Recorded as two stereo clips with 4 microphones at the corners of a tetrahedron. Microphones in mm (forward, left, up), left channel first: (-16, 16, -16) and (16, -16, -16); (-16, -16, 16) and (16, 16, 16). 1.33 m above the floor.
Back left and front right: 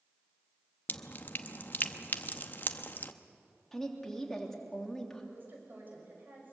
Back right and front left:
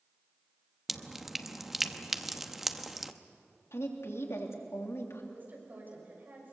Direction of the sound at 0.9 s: 125° left.